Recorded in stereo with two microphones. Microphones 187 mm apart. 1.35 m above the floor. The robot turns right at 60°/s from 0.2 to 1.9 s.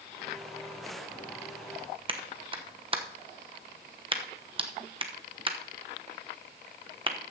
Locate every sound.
2.1 s a clap: 30° right (ahead or behind), 1.0 m